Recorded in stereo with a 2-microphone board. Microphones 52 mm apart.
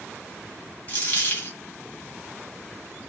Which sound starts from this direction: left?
A dropped coin, at 0.9 s.